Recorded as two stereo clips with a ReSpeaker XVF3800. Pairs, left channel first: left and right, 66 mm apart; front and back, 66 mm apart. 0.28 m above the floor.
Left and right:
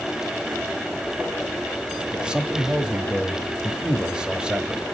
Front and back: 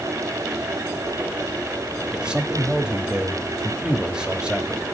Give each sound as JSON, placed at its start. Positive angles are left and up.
{"t": 2.1, "sound": "a man speaking", "azimuth_deg": -130, "distance_m": 1.0}